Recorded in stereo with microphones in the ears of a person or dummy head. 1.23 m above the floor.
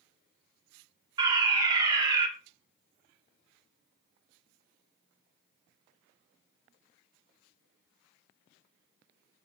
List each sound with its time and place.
1.2 s a fire alarm: 25° right (ahead or behind), 3 m